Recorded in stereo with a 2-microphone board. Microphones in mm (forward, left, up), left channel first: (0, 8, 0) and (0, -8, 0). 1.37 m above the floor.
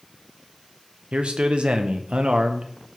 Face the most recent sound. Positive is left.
turn(degrees=-65)  # may be behind; listen again after turning